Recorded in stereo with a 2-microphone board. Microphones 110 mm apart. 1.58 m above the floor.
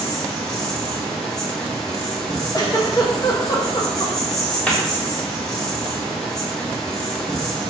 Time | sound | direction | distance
0.0 | an insect | 5° left (ahead or behind) | 0.8 m
2.5 | a giggle | 35° left (ahead or behind) | 0.6 m
4.7 | a cupboard door | 10° left (ahead or behind) | 0.8 m